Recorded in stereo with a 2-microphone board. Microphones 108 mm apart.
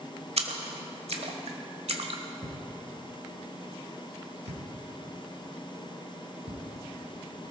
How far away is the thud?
About 2.5 m.